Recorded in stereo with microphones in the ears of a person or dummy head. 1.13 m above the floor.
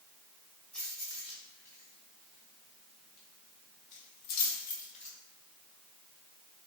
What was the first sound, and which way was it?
Keys jangling, 5° left (ahead or behind).